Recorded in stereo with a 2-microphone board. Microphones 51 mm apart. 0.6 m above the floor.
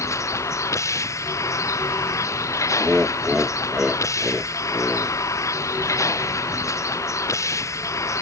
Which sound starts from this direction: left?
A vehicle, at 0.0 s.